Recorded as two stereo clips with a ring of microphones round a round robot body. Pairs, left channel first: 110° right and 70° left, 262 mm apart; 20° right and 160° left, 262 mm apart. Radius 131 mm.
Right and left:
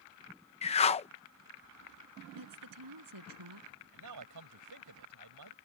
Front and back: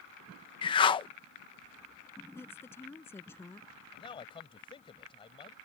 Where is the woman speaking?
60° left.